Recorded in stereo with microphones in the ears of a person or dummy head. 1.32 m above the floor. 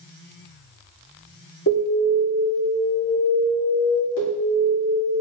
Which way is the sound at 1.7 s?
60° left (ahead or behind).